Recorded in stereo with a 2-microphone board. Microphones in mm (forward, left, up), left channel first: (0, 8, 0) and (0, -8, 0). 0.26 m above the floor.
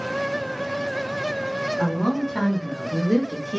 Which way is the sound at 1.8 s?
20° left (ahead or behind).